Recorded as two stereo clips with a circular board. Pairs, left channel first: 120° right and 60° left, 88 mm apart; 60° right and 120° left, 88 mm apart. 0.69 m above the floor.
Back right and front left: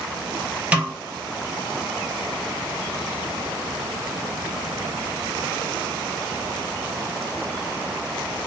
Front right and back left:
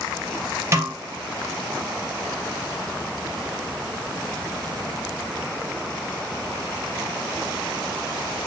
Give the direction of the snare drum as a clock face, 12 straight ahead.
8 o'clock.